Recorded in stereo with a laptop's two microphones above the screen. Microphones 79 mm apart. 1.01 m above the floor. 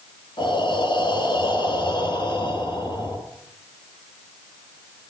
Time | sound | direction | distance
0.4 | breathing | 75° left (ahead or behind) | 3.5 m